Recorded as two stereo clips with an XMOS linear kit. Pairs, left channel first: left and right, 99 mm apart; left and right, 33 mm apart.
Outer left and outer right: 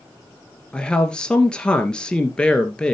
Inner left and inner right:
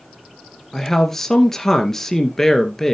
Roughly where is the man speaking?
Centre.